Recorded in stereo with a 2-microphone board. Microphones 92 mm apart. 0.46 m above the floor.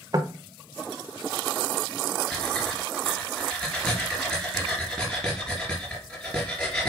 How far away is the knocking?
About 0.8 m.